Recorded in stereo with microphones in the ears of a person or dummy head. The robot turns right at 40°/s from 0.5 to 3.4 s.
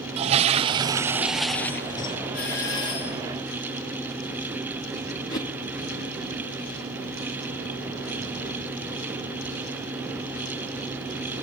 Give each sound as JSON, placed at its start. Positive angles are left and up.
{"t": 0.2, "sound": "a toilet flushing", "azimuth_deg": -35, "distance_m": 0.6}
{"t": 2.3, "sound": "a doorbell", "azimuth_deg": 50, "distance_m": 8.0}
{"t": 5.3, "sound": "a whoosh", "side_deg": 20, "distance_m": 1.0}